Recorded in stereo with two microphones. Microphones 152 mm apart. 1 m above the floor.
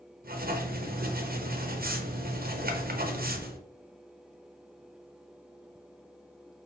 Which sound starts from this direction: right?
Writing, at 0.2 s.